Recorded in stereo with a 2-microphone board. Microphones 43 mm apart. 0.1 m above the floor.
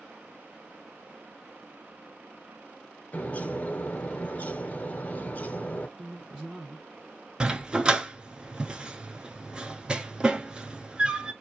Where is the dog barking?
20° right (ahead or behind), 0.6 m.